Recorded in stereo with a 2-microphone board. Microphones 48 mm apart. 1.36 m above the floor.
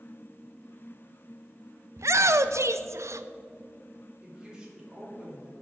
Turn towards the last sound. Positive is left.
turn(degrees=-15)  # may be behind; listen again after turning